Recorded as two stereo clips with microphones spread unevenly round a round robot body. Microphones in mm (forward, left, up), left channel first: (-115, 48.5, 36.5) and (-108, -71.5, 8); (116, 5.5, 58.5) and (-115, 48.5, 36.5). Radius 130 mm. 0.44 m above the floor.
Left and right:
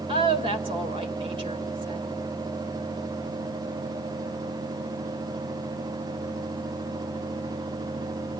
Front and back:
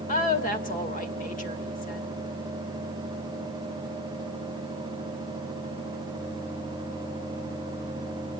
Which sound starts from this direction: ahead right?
A woman speaking, at 0.1 s.